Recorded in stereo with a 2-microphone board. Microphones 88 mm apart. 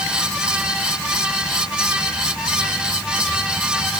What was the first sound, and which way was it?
Only background noise.